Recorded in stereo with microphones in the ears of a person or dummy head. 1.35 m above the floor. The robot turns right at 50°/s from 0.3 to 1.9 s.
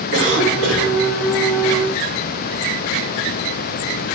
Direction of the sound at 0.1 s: 100° right.